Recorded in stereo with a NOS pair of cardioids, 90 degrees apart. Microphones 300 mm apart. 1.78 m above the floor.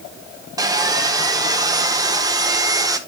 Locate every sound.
0.6 s sawing: 10° right, 1.2 m